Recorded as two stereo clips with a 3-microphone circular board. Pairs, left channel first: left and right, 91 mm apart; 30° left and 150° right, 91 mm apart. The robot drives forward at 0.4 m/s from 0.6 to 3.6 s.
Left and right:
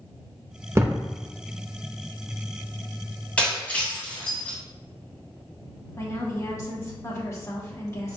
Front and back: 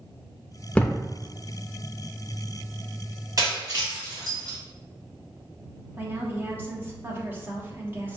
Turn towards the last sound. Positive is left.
turn(degrees=145)